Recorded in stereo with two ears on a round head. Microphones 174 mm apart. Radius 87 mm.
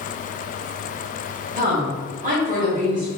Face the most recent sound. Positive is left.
turn(degrees=-40)  # may be behind; listen again after turning